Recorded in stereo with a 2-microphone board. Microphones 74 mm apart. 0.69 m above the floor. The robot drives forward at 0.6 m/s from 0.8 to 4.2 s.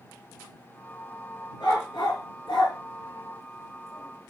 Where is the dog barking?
80° left, 3.5 m; by 4.3 s 70° left (ahead or behind), 3.5 m.